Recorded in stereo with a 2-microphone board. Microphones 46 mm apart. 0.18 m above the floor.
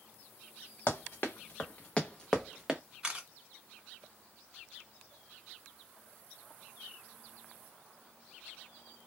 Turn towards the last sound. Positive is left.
turn(degrees=-20)  # may be behind; listen again after turning